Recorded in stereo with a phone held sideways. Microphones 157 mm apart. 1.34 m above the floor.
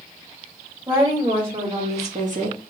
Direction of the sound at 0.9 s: 25° right (ahead or behind).